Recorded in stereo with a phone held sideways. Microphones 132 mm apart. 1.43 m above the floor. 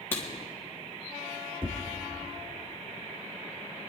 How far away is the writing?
About 3 m.